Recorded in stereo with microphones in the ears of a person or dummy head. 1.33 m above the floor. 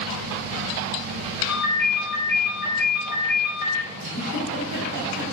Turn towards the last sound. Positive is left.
turn(degrees=-75)  # may be behind; listen again after turning